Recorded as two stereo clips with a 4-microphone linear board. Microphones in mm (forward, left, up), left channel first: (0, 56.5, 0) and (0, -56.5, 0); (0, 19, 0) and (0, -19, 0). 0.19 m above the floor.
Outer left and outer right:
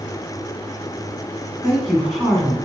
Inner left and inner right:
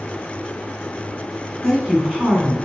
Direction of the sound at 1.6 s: 5° right (ahead or behind).